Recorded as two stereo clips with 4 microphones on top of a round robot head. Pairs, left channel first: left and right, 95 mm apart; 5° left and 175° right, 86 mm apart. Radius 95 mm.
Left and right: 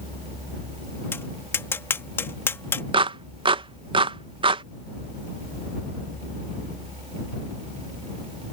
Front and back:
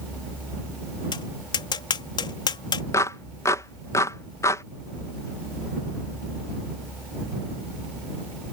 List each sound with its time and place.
1.1 s tapping: 30° left
2.9 s a clap: 60° right